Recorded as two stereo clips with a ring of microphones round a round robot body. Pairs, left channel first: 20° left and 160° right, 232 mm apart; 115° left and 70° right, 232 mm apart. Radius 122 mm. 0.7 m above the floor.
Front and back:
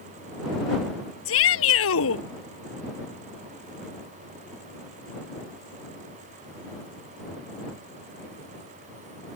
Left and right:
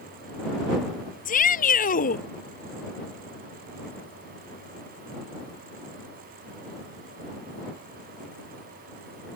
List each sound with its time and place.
1.2 s a shout: 55° left